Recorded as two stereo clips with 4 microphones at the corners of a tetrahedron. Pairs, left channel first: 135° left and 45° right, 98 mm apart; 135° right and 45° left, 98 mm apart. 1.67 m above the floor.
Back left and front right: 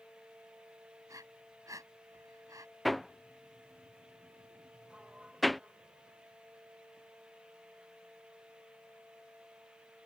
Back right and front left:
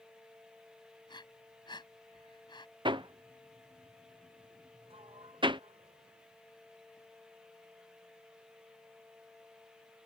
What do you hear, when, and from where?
1.1 s breathing: 100° right
2.9 s hammering: 45° left
4.9 s a sliding door: 35° left